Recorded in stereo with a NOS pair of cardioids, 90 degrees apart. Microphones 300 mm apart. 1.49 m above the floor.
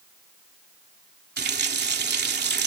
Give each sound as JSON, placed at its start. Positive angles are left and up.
{"t": 1.4, "sound": "a running tap", "azimuth_deg": -35}